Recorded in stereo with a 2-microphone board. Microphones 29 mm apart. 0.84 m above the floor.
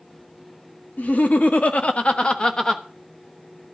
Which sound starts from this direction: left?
Laughter, at 1.0 s.